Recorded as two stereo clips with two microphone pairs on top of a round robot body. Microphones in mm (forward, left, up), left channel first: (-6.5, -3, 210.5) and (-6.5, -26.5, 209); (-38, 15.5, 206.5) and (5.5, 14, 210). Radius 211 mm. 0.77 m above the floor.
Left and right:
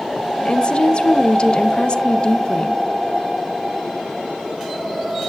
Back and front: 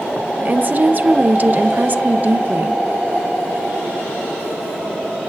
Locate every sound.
0.4 s a woman speaking: 45° left, 0.7 m